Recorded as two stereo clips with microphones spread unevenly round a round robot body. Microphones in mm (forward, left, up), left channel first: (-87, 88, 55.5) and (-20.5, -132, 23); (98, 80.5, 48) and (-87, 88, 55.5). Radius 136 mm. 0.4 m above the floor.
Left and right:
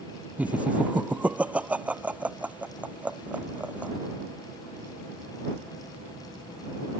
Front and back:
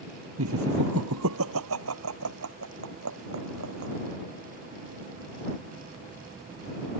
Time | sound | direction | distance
0.4 | laughter | 160° right | ?